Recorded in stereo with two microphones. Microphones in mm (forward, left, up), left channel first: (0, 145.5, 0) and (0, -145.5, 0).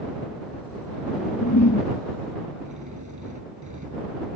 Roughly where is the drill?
Right.